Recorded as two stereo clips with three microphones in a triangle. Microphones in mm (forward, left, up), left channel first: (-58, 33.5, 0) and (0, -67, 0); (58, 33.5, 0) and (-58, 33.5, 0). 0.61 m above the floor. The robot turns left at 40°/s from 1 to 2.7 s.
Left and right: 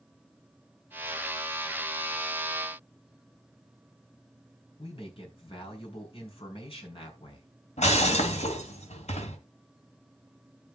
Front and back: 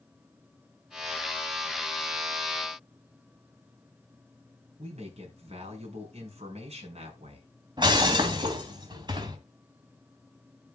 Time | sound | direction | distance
4.8 | a man speaking | 155° left | 6.5 m
7.8 | breaking glass | 130° left | 2.5 m